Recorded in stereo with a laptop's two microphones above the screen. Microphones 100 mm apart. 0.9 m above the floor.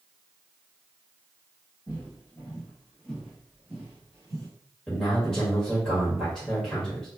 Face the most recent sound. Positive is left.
turn(degrees=5)  # may be behind; listen again after turning